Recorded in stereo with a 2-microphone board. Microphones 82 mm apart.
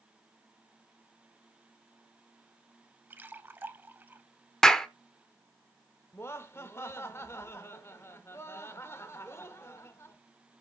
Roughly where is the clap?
Centre.